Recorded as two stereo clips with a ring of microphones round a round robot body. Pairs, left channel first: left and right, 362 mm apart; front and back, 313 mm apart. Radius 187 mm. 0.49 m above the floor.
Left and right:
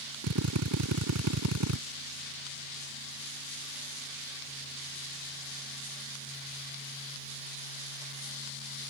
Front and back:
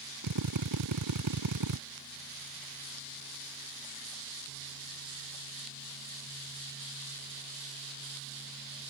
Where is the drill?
140° right.